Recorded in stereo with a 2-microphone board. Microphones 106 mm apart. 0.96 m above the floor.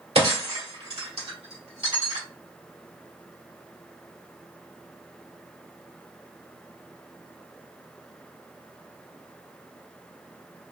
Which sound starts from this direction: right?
Breaking glass, at 0.1 s.